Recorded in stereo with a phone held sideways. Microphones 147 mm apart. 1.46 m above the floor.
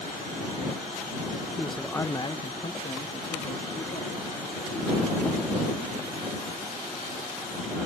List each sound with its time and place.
1.6 s a man speaking: 5° right (ahead or behind); by 6.2 s 75° left (ahead or behind)